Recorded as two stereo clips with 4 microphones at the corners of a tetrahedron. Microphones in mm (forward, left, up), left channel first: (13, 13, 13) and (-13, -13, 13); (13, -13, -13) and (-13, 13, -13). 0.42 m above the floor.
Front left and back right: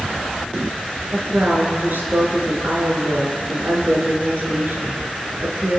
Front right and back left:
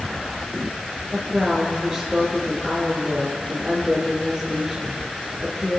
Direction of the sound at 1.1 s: 145° right.